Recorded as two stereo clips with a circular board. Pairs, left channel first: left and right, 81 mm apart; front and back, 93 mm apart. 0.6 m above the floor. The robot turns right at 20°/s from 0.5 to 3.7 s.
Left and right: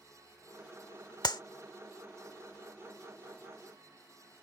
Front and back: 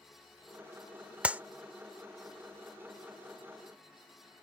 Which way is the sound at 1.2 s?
105° left.